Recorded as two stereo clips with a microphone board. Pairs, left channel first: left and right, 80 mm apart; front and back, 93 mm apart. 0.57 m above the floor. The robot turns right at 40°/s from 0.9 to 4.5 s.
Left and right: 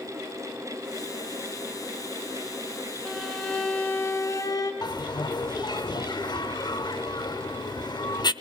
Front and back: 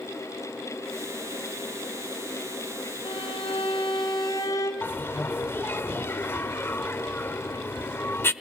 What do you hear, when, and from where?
3.0 s a violin: 10° right, 4 m; by 4.7 s 50° left, 4 m
4.8 s a bell: 65° left, 0.8 m